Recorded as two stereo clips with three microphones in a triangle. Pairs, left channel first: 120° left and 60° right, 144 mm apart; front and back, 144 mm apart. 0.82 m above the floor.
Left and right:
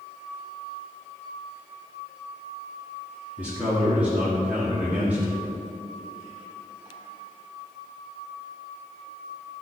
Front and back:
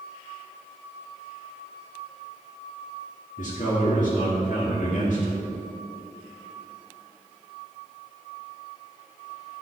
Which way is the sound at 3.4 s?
20° left.